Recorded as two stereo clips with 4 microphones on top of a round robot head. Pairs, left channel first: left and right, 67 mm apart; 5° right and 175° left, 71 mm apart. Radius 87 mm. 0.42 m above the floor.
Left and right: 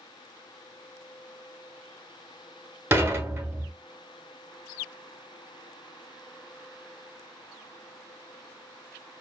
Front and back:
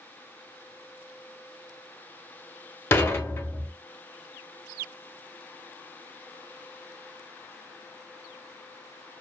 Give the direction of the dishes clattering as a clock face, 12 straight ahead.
2 o'clock.